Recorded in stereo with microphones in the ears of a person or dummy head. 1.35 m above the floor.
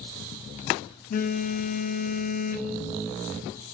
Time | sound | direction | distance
1.1 | a phone buzzing | 50° left (ahead or behind) | 0.5 m